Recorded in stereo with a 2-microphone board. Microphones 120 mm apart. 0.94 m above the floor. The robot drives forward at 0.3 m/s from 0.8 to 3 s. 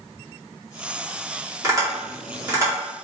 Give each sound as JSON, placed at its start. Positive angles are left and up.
{"t": 1.6, "sound": "tapping", "side_deg": -30, "distance_m": 2.0}